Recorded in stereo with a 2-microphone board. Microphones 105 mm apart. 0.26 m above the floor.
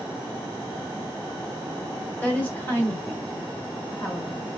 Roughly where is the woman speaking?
Centre.